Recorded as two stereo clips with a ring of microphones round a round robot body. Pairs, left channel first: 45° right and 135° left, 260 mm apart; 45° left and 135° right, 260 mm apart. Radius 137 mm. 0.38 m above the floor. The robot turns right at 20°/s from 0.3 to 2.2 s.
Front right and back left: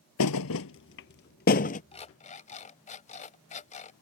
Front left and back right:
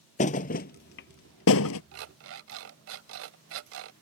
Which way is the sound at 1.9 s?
110° right.